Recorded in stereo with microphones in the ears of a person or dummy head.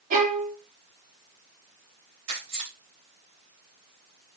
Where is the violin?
40° right (ahead or behind), 1.1 m.